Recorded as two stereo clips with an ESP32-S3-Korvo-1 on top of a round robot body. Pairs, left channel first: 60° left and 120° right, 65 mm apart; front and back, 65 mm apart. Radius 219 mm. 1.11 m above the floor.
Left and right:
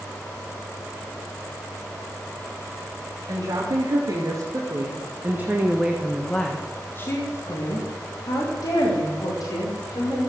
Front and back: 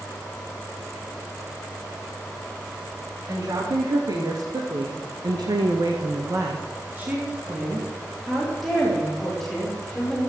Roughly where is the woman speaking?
Behind right.